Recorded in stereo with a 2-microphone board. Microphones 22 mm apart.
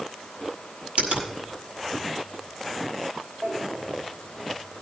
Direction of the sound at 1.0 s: 65° right (ahead or behind).